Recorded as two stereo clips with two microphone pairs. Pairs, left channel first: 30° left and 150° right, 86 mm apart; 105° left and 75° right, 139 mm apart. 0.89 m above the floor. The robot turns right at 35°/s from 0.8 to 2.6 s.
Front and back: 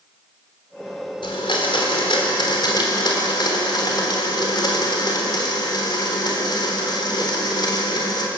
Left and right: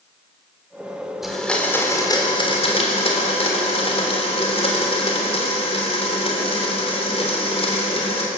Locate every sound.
1.2 s a blender: 15° left, 3.5 m; by 8.3 s 65° left, 3.5 m